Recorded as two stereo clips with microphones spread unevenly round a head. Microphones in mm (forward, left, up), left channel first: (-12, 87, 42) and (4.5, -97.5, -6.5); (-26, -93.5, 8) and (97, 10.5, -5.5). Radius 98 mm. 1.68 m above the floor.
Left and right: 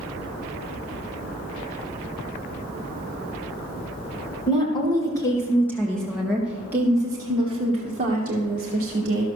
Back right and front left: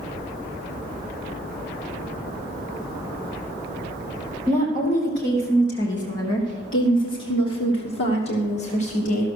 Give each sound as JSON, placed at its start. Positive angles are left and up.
{"t": 4.5, "sound": "a woman speaking", "azimuth_deg": 165, "distance_m": 2.0}